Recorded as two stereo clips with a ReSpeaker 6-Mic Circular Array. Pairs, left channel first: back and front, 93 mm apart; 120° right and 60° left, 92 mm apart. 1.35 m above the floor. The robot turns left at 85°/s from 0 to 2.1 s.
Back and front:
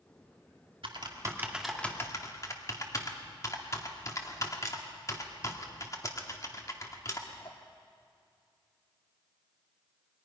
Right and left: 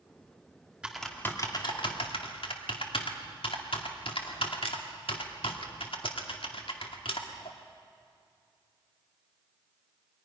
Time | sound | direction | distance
0.8 | typing on a keyboard | 20° right | 2 m